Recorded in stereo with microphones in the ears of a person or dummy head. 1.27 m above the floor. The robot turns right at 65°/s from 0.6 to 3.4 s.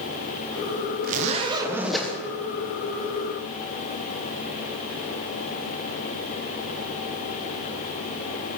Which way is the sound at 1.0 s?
60° right.